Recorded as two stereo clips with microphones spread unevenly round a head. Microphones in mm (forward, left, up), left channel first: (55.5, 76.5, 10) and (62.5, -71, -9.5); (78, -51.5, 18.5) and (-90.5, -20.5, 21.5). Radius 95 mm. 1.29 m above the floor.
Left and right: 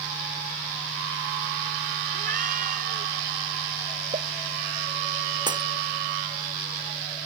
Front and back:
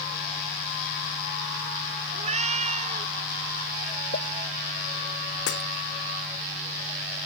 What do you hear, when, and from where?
2.1 s a cat meowing: 140° right
4.1 s a pop: 40° right
5.5 s breaking glass: 25° right